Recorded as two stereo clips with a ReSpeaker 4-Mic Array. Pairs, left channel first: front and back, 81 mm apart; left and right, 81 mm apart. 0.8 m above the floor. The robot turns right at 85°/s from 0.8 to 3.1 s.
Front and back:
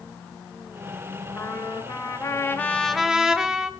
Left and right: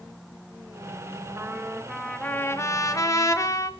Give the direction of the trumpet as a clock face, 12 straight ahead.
1 o'clock.